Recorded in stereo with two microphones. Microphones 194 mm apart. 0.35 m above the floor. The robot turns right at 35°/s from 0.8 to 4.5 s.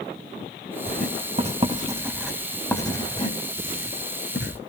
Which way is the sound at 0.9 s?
55° right (ahead or behind).